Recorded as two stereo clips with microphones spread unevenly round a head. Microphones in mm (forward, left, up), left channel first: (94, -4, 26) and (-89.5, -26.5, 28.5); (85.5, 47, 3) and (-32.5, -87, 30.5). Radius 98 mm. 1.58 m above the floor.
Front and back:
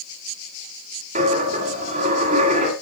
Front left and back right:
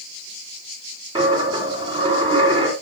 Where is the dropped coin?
165° right, 1.8 m.